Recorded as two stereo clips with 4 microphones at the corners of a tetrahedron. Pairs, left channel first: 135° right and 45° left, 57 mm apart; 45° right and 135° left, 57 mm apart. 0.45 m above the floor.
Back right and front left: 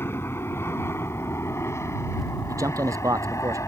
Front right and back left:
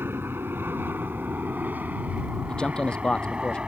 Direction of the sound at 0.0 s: Straight behind.